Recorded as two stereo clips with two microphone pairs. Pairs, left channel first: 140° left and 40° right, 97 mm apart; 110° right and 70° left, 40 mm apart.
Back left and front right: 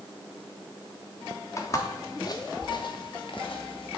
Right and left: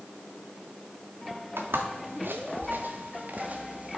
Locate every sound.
1.6 s footsteps: 80° left, 1.8 m; by 4.0 s 130° left, 1.9 m